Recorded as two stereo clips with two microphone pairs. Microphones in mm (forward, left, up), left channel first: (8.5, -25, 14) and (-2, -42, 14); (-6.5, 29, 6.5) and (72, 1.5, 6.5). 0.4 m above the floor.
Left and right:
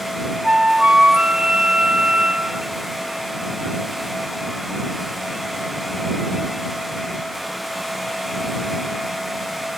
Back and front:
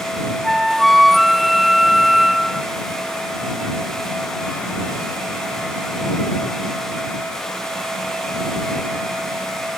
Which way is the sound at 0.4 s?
105° right.